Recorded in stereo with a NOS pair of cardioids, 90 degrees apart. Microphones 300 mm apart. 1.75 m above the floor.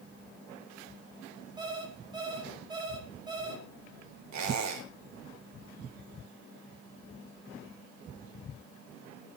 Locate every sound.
1.6 s an alarm clock: 15° right, 5.5 m
4.3 s a squeak: 70° right, 4.5 m